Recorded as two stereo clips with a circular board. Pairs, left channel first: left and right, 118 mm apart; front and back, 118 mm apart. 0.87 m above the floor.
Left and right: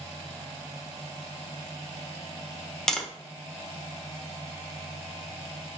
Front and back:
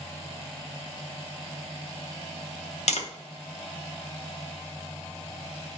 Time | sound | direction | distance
2.9 | tapping | 5° left | 0.9 m